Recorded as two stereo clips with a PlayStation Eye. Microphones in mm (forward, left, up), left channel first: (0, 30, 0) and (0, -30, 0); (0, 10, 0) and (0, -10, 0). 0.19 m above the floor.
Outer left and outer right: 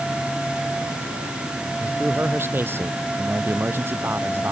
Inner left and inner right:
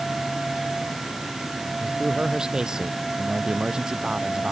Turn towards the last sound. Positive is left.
turn(degrees=-40)  # may be behind; listen again after turning